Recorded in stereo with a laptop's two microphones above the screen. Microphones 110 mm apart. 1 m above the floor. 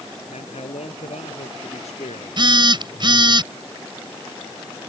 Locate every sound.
0.3 s a man speaking: 85° left
2.4 s a phone buzzing: 45° right (ahead or behind)